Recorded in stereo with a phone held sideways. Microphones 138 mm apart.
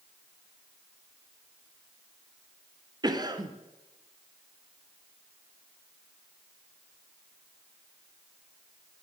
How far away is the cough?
About 0.8 m.